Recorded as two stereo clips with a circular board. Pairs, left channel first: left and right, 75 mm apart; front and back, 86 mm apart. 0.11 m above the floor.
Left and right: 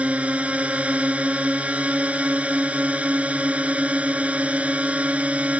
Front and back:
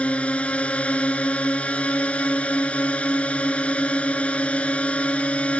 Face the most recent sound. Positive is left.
turn(degrees=-50)